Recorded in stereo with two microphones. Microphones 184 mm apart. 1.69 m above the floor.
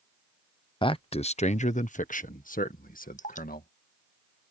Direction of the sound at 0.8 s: 25° left (ahead or behind).